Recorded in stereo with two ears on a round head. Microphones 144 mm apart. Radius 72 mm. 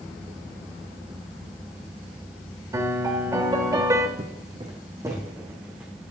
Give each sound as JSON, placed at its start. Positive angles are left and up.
{"t": 2.7, "sound": "a piano", "side_deg": -20, "distance_m": 1.0}
{"t": 4.2, "sound": "footsteps", "side_deg": -35, "distance_m": 1.8}